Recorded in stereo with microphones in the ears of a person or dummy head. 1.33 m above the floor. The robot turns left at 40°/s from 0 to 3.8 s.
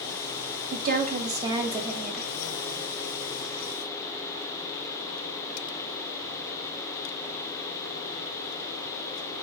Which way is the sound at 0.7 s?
120° right.